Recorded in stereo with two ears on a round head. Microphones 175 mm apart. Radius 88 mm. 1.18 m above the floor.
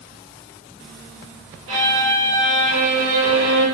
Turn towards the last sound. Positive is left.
turn(degrees=-75)  # may be behind; listen again after turning